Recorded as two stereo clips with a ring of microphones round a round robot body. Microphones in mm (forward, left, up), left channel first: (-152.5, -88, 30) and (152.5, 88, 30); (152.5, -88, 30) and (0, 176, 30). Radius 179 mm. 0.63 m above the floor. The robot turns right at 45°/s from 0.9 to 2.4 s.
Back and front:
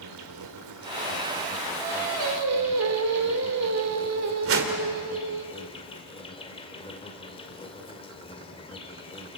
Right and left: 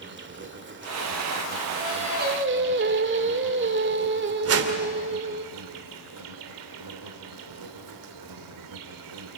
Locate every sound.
0.0 s an insect: 70° left, 2 m; by 9.4 s 135° left, 2 m
1.8 s singing: 45° left, 2 m; by 5.5 s 70° left, 2 m
4.5 s a whoosh: 80° left, 2.5 m